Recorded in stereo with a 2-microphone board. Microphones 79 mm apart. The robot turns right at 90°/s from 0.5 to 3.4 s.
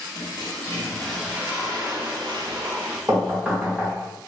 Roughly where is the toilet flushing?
Behind left.